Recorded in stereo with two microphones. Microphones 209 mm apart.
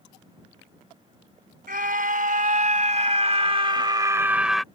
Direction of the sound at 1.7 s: 45° right (ahead or behind).